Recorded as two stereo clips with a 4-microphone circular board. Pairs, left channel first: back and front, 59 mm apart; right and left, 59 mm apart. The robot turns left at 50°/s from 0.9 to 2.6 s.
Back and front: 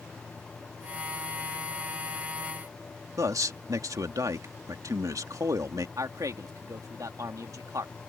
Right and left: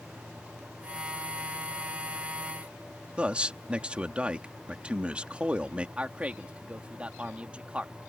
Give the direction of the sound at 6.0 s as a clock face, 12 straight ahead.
11 o'clock.